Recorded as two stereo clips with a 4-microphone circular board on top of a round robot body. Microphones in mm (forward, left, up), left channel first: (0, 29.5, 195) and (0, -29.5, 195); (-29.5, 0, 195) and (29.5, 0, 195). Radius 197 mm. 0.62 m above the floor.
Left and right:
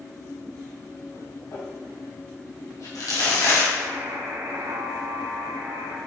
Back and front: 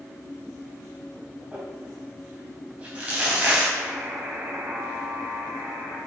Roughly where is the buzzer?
Ahead right.